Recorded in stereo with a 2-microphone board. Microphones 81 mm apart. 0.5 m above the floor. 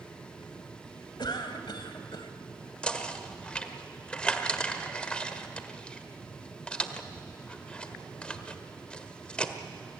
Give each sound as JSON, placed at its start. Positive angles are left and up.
{"t": 1.2, "sound": "a cough", "side_deg": 65, "distance_m": 2.0}
{"t": 2.8, "sound": "knocking", "side_deg": 15, "distance_m": 1.3}